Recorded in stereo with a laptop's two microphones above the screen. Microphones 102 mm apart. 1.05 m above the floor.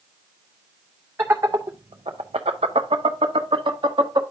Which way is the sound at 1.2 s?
25° right (ahead or behind).